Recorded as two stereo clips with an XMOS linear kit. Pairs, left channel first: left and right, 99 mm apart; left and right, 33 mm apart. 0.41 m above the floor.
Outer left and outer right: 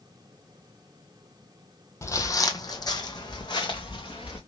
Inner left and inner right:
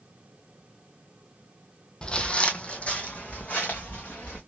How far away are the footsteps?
About 0.6 m.